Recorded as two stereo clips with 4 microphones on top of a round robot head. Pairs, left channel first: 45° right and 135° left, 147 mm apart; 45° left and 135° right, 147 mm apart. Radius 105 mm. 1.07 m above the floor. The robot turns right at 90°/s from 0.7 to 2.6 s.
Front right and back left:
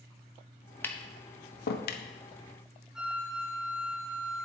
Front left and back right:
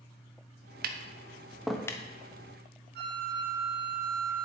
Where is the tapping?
125° right, 0.9 m; by 2.0 s 15° right, 0.9 m.